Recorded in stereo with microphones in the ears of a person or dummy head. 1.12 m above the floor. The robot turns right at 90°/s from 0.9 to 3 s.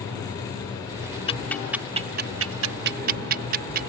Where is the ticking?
30° left (ahead or behind); by 3.9 s 50° right (ahead or behind).